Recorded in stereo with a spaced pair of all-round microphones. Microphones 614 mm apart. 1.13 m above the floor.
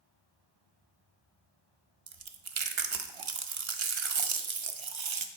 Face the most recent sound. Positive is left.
turn(degrees=-55)  # may be behind; listen again after turning